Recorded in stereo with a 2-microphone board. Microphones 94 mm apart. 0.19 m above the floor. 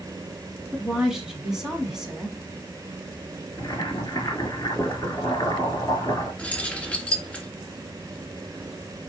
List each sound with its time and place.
0.7 s a woman speaking: 5° right (ahead or behind), 1.4 m
3.6 s boiling: 35° left (ahead or behind), 2 m
6.4 s keys jangling: 10° left (ahead or behind), 1.8 m